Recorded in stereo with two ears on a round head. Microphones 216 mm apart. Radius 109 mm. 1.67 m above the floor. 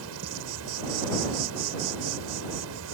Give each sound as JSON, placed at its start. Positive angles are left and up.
{"t": 0.0, "sound": "an insect", "side_deg": -65}